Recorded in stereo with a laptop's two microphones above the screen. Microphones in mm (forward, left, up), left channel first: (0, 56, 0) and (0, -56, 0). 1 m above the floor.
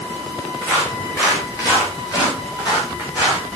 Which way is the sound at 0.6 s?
25° left (ahead or behind).